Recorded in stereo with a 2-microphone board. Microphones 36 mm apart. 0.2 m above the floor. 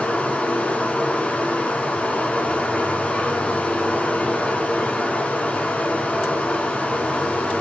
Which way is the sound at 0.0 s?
35° left (ahead or behind).